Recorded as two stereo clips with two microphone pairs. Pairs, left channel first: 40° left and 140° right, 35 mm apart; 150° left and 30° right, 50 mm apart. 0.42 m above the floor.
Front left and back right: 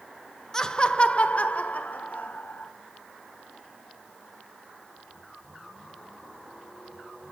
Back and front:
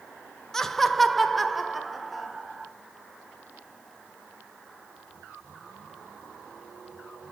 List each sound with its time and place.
0.5 s laughter: 80° left, 0.8 m; by 2.7 s 55° left, 2 m